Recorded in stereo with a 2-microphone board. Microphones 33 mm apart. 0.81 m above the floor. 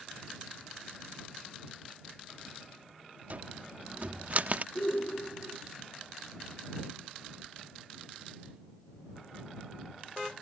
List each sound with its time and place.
3.3 s a cupboard door: 50° right (ahead or behind)
4.8 s a shout: 65° left (ahead or behind)